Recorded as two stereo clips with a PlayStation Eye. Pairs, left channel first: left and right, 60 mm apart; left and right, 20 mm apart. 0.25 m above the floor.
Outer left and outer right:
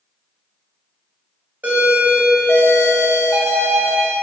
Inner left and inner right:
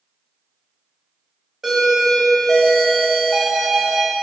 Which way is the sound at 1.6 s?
30° right (ahead or behind).